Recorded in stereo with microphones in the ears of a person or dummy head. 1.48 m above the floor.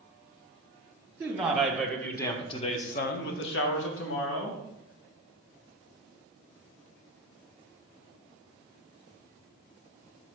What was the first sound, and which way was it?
A man speaking, 10° right (ahead or behind).